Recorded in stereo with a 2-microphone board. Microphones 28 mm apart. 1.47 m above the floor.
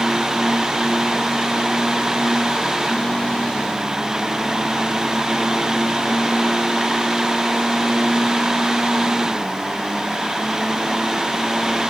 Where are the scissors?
I don't hear scissors.